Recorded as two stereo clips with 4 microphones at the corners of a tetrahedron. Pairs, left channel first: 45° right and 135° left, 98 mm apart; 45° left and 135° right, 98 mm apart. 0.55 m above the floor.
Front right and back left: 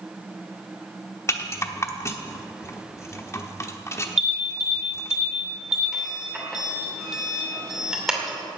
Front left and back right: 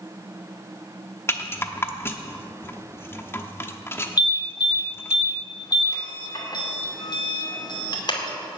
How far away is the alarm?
About 2.5 m.